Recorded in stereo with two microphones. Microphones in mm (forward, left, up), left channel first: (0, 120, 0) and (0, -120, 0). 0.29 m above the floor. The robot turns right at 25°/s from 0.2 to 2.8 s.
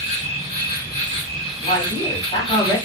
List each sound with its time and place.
0.0 s an insect: 145° left, 1.5 m; by 2.9 s 150° right, 1.5 m
1.6 s a man speaking: 30° left (ahead or behind), 1.4 m; by 2.8 s 15° left (ahead or behind), 1.4 m